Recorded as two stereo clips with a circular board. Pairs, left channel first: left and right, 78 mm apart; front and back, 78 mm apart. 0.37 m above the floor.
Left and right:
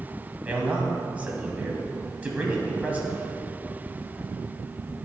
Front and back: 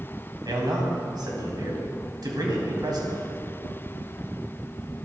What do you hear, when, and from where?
0.5 s a man speaking: 160° right, 2 m